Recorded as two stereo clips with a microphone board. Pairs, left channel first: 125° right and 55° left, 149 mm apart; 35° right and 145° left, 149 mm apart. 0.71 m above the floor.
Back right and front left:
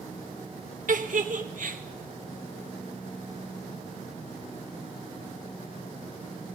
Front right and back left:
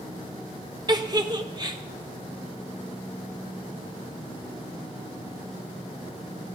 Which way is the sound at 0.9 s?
85° left.